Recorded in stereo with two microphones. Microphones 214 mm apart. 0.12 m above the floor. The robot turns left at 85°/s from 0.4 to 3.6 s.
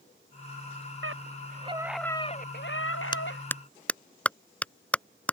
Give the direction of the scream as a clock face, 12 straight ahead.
3 o'clock.